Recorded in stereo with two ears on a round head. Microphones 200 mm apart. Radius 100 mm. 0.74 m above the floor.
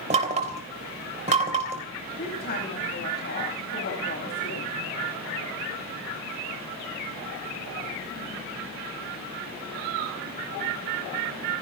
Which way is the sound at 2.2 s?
45° left (ahead or behind).